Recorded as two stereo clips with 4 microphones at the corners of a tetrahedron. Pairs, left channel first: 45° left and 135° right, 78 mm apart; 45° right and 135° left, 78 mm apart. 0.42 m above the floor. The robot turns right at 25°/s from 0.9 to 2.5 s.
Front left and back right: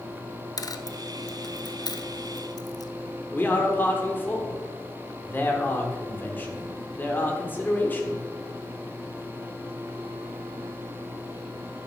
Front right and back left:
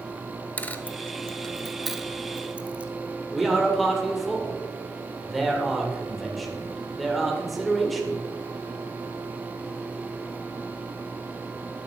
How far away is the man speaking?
About 1.4 m.